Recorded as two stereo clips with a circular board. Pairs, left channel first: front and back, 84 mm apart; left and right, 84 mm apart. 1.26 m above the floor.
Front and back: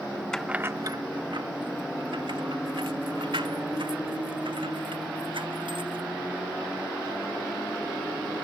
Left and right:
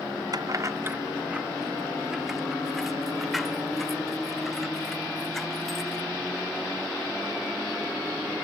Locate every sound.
0.3 s keys jangling: 80° right; by 6.1 s straight behind